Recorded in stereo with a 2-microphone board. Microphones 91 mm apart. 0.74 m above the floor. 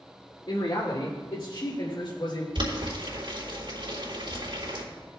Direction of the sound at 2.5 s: 65° right (ahead or behind).